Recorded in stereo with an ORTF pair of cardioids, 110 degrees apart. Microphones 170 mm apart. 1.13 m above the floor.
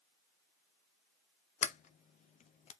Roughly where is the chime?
No chime in this recording.